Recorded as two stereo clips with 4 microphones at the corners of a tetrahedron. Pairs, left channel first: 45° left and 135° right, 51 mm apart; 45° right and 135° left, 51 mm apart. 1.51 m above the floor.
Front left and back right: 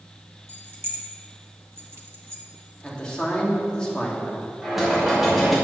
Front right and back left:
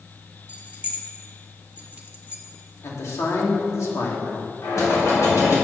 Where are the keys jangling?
165° right, 1.5 m.